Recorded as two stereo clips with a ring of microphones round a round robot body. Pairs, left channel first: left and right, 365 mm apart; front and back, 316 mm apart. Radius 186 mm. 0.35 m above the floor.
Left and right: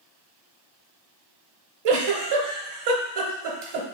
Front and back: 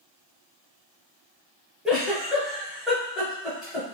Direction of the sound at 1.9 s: 90° right.